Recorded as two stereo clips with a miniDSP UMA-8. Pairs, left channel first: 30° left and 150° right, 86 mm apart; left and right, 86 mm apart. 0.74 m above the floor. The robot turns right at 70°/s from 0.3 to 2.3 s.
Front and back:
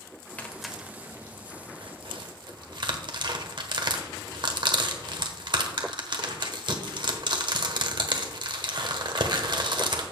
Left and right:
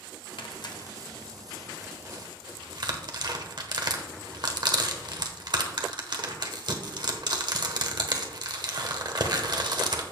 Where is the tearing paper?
105° left, 1.1 m; by 10.0 s 125° right, 1.1 m.